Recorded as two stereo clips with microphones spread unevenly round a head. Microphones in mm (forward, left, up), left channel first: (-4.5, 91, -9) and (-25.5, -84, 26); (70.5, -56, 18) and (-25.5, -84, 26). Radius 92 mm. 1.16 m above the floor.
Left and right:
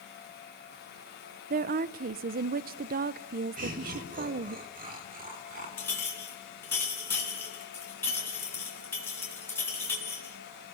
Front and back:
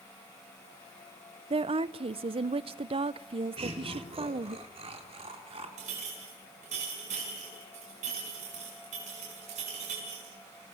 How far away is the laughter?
About 4.5 m.